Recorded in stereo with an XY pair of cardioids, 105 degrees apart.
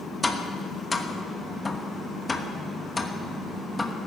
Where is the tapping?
15° left, 1.1 m.